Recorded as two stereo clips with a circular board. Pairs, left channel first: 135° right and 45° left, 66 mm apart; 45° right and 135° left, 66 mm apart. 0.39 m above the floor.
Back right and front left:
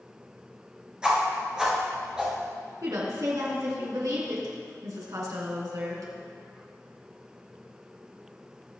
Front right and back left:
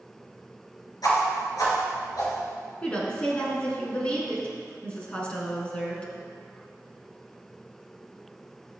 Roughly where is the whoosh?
Ahead right.